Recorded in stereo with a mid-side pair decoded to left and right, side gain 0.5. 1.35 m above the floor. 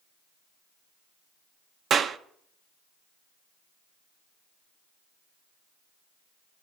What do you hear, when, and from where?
1.9 s a clap: 50° right, 0.7 m